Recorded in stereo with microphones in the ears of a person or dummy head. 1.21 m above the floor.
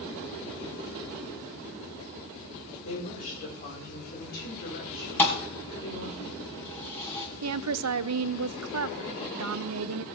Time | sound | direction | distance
2.9 | a woman speaking | 35° left (ahead or behind) | 5 m
5.2 | a thud | 10° left (ahead or behind) | 2 m
7.4 | a woman speaking | 75° right (ahead or behind) | 0.7 m